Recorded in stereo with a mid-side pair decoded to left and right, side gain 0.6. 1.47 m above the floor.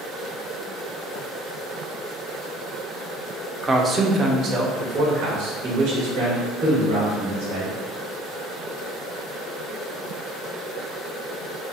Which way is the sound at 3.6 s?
15° right.